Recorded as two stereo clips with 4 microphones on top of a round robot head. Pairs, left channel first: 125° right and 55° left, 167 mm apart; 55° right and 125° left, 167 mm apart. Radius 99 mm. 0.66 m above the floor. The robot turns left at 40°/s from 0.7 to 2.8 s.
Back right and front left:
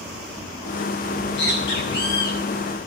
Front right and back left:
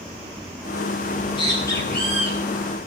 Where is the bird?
100° right, 8 m; by 2.4 s 155° right, 8 m.